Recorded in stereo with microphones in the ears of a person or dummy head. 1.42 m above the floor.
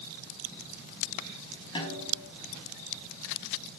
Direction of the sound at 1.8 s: 35° left (ahead or behind).